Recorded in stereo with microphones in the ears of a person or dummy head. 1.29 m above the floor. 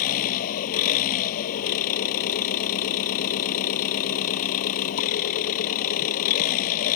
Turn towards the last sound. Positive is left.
turn(degrees=45)  # may be behind; listen again after turning